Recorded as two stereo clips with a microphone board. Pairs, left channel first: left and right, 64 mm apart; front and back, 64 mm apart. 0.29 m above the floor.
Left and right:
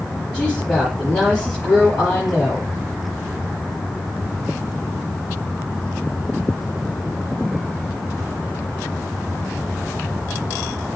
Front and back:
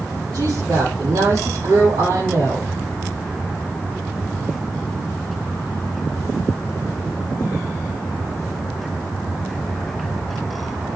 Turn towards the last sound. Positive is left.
turn(degrees=165)